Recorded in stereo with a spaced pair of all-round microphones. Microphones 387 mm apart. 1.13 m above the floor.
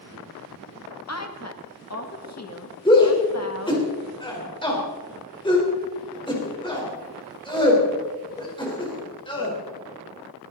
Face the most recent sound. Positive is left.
turn(degrees=10)  # may be behind; listen again after turning